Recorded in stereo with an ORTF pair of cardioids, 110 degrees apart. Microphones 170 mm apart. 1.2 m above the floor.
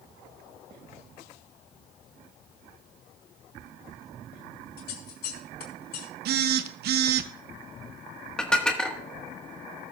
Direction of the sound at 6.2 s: 65° right.